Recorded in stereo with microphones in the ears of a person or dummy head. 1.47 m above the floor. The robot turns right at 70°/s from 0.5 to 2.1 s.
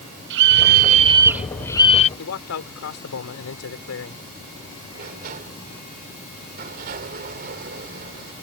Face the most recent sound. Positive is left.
turn(degrees=-55)  # may be behind; listen again after turning